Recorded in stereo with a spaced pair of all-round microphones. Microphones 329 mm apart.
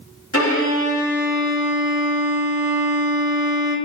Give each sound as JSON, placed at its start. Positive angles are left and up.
{"t": 0.3, "sound": "a violin", "side_deg": 45, "distance_m": 3.0}